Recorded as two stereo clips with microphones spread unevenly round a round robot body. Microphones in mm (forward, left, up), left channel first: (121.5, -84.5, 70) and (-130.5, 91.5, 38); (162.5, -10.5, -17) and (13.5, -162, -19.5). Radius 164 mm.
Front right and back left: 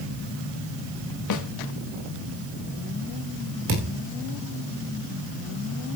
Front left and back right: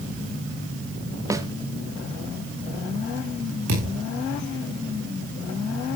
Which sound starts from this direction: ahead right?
A snare drum, at 1.3 s.